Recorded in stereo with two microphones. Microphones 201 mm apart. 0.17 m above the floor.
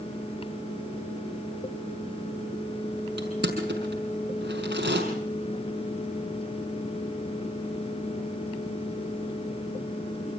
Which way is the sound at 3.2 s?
55° right (ahead or behind).